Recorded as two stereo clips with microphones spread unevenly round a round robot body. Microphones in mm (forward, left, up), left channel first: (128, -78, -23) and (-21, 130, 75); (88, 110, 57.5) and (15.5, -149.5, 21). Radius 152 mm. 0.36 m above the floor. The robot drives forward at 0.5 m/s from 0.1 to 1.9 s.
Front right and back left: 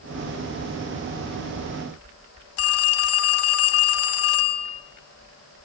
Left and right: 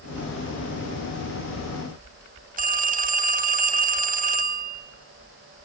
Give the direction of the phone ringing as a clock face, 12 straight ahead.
2 o'clock.